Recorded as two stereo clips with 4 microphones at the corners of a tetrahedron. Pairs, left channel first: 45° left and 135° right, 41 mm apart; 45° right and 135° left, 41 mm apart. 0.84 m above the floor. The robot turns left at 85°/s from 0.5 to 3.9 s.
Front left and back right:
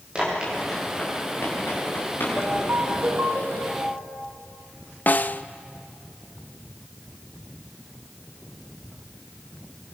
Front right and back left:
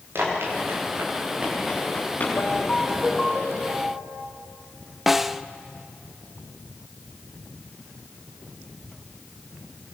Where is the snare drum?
55° left, 0.6 m.